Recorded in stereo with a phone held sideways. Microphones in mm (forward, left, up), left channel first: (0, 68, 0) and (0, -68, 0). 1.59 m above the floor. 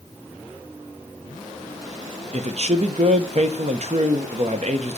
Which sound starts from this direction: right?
A man speaking, at 2.3 s.